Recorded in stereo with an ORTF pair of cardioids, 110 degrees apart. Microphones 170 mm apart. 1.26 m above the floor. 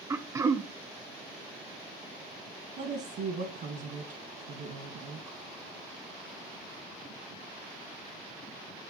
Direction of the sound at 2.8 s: 65° right.